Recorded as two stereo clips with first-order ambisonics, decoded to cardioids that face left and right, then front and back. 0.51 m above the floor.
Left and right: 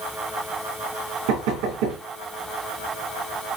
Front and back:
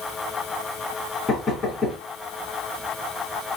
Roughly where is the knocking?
Right.